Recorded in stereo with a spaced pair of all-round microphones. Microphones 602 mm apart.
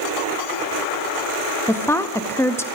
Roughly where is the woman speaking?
Centre.